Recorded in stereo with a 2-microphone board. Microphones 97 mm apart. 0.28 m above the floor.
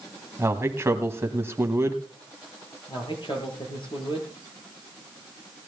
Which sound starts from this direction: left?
A man speaking, at 2.9 s.